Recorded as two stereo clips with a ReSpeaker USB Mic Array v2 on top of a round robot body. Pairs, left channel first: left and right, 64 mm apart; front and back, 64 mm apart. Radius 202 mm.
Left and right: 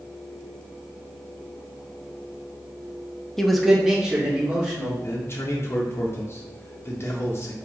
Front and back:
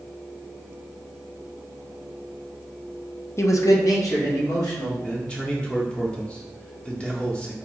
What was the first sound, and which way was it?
A man speaking, 10° left.